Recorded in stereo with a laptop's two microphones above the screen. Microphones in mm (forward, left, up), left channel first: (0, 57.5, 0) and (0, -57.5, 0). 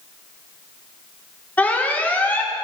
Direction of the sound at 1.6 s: 15° left (ahead or behind).